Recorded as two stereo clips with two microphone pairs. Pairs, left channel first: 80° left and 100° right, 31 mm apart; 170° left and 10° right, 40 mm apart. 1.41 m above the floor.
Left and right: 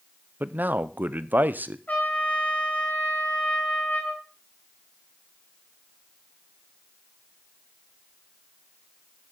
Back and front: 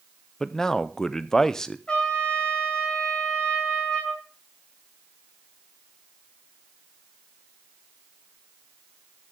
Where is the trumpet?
105° left, 3.5 m.